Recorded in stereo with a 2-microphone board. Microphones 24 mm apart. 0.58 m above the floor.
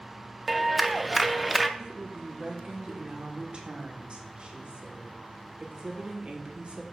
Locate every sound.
0.5 s a clap: 5° right (ahead or behind), 0.5 m
1.8 s a woman speaking: 45° right (ahead or behind), 1.6 m